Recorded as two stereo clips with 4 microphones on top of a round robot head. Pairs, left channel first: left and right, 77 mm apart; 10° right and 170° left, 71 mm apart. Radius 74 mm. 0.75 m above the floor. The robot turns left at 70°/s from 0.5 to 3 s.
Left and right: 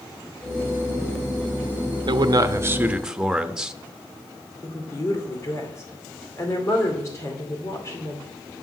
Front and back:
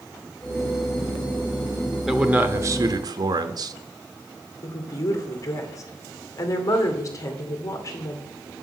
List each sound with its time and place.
2.1 s a man speaking: 105° right, 0.9 m; by 3.7 s 170° right, 0.9 m
4.6 s a woman speaking: 35° left, 2.5 m